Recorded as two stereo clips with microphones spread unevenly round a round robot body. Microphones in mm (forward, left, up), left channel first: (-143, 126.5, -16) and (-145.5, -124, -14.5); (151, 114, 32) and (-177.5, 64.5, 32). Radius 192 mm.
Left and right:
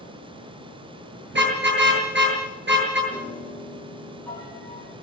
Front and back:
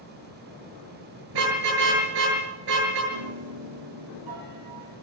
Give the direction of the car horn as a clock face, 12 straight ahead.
5 o'clock.